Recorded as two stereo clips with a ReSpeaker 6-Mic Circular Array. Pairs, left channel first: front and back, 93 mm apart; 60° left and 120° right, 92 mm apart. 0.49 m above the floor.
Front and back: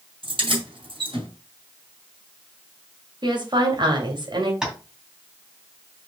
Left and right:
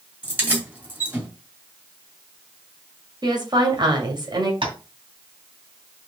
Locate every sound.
0.2 s keys jangling: 170° left, 2.5 m
3.2 s a woman speaking: 155° right, 2.5 m
4.6 s tapping: 100° right, 2.5 m